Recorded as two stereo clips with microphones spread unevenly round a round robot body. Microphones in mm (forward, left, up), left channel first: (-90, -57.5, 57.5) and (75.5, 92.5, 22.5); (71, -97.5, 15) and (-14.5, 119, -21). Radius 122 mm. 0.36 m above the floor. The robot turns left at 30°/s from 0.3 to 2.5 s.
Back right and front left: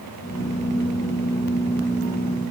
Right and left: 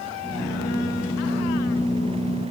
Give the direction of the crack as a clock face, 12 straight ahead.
No crack in this recording.